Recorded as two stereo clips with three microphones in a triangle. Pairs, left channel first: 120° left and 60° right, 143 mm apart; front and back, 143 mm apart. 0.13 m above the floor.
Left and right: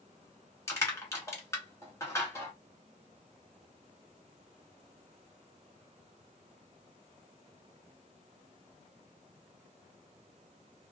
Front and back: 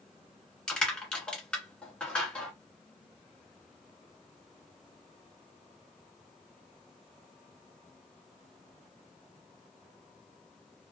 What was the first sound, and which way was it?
Crushing, 75° left.